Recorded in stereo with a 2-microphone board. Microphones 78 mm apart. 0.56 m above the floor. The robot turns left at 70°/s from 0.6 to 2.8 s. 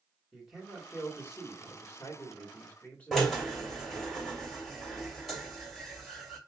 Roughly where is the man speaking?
Behind.